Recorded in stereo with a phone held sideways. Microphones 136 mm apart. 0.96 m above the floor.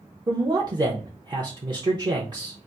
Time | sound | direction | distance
0.3 | a man speaking | 30° right (ahead or behind) | 0.8 m